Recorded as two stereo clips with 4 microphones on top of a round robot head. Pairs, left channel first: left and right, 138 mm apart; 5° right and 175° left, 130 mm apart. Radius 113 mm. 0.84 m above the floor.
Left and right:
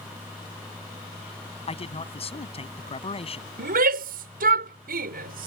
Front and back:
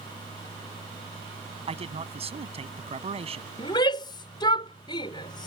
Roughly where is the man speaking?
Behind left.